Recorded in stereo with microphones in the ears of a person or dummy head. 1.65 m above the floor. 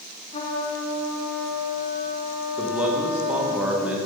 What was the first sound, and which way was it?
A trumpet, 35° left (ahead or behind).